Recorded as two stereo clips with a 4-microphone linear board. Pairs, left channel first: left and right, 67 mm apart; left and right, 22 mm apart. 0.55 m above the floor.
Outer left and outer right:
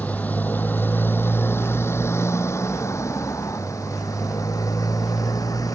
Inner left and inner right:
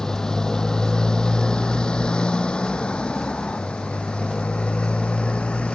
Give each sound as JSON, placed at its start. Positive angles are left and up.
{"t": 0.0, "sound": "a motorcycle", "side_deg": 20}